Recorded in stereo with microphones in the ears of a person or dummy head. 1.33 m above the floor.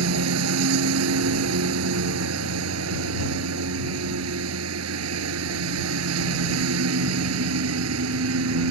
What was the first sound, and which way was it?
A lawn mower, 75° right (ahead or behind).